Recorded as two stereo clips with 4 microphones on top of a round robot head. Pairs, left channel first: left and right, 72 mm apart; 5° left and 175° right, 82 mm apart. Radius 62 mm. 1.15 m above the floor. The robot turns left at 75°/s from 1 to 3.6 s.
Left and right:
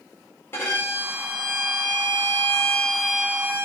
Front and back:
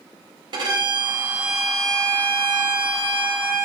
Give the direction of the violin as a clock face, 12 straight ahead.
7 o'clock.